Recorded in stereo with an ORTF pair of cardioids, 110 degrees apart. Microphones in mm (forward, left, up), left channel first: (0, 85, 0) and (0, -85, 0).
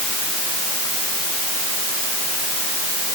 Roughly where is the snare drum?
I don't hear a snare drum.